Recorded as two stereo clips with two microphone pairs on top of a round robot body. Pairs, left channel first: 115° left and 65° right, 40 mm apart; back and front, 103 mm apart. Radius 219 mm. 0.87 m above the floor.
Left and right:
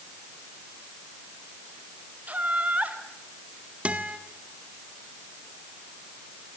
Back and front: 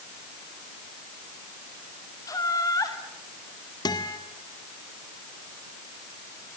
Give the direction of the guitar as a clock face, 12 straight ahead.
4 o'clock.